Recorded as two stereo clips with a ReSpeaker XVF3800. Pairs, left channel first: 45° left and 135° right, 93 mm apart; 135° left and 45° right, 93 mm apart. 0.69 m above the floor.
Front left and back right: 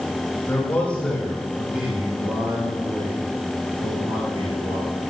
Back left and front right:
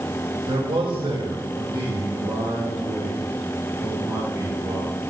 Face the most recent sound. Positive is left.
turn(degrees=-110)